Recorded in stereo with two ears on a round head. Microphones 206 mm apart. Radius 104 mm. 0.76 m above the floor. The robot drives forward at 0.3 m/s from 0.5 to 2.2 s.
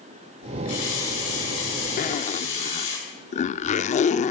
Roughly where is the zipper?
Left.